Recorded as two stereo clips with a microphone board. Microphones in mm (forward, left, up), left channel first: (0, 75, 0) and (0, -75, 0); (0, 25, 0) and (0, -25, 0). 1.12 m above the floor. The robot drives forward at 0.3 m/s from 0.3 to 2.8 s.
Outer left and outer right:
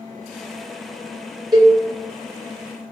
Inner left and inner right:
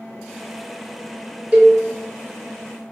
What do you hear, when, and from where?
1.5 s a cowbell: 25° right (ahead or behind), 0.8 m